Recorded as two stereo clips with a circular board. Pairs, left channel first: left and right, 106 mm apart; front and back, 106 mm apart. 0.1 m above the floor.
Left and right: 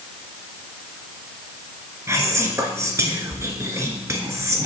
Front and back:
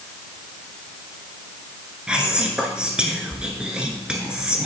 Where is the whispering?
110° right, 1.3 m.